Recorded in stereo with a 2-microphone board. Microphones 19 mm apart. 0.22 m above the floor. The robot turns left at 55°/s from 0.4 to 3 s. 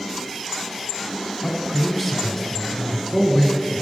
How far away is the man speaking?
About 1.4 m.